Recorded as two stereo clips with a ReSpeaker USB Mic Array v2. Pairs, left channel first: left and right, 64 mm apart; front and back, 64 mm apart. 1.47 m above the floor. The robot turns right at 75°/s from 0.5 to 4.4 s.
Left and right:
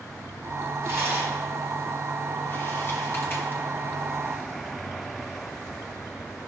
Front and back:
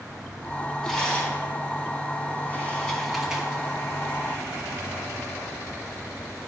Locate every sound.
0.8 s a rattle: 80° right, 1.8 m; by 3.6 s 130° left, 1.8 m